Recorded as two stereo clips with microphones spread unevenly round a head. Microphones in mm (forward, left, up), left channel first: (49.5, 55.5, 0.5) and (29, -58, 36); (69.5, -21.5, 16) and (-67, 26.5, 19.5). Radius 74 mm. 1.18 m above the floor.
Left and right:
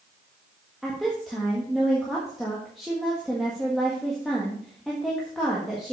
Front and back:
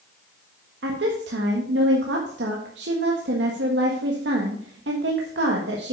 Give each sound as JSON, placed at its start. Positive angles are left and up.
{"t": 0.8, "sound": "a woman speaking", "azimuth_deg": 170, "distance_m": 1.5}